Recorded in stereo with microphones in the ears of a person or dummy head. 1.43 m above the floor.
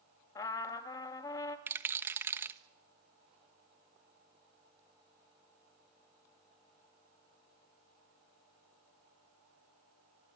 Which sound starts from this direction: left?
A trumpet, at 0.3 s.